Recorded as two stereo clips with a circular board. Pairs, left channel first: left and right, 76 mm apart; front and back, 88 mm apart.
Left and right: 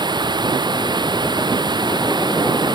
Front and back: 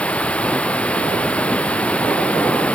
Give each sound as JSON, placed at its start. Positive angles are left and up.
{"t": 0.0, "sound": "running water", "azimuth_deg": -75}